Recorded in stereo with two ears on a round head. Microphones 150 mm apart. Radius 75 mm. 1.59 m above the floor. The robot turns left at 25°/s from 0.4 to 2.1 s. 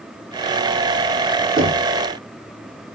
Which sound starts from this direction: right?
Knocking, at 1.6 s.